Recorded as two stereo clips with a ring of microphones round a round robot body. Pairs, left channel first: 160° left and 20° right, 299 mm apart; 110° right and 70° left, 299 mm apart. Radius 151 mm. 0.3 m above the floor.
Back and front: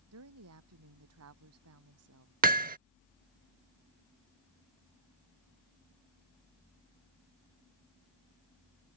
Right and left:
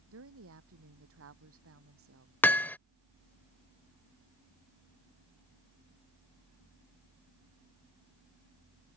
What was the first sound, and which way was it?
A woman speaking, 20° left.